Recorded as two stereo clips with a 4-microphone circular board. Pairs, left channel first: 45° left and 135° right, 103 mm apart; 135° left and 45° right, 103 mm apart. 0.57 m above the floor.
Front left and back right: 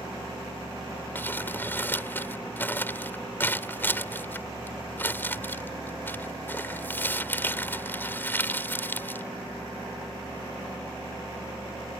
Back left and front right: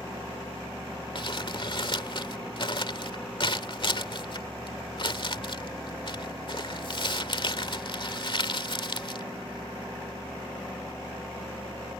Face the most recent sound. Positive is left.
turn(degrees=110)